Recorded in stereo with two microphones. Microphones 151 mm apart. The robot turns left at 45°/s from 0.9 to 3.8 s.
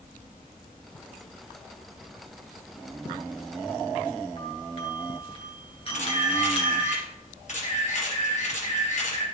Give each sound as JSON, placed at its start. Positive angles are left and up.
{"t": 4.4, "sound": "a doorbell", "side_deg": 45, "distance_m": 2.5}
{"t": 5.9, "sound": "a camera shutter", "side_deg": 50, "distance_m": 3.0}